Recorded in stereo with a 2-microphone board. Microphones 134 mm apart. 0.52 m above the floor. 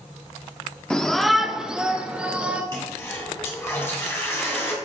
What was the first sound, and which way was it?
A shout, 5° left (ahead or behind).